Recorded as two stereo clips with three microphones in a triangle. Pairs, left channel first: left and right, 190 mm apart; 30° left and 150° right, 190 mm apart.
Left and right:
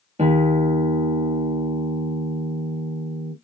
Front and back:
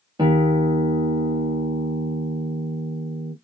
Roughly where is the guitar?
Right.